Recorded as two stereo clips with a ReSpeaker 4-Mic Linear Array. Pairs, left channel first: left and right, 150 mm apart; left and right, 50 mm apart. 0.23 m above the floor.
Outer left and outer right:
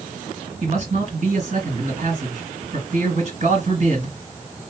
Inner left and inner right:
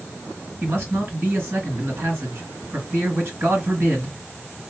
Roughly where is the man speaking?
Right.